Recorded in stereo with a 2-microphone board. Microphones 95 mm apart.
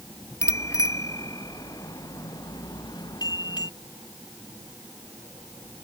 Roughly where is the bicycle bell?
Left.